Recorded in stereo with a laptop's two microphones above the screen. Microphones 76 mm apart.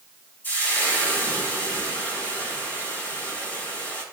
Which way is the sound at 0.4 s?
20° left (ahead or behind).